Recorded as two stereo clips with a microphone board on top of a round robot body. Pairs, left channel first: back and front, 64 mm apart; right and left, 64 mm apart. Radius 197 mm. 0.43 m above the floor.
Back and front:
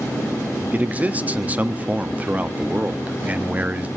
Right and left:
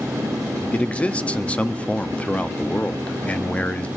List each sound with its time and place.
0.7 s a man speaking: 40° right, 1.5 m